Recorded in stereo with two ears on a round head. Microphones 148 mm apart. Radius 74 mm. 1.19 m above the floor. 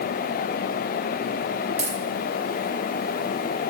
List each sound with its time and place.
1.8 s a dropped coin: 35° right (ahead or behind), 5 m